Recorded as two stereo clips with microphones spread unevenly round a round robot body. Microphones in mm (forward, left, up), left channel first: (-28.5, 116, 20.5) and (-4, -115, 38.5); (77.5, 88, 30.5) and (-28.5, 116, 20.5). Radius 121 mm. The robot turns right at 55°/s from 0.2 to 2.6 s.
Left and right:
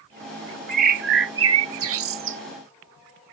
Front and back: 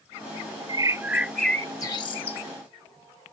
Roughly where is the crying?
I don't hear crying.